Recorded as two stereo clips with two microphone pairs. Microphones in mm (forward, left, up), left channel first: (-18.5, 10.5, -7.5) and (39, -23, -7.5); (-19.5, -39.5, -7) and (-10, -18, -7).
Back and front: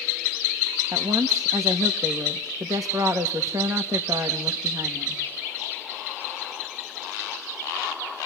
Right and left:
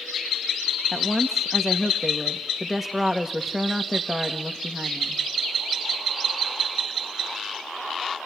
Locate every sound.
0.9 s a woman speaking: 10° right, 1.4 m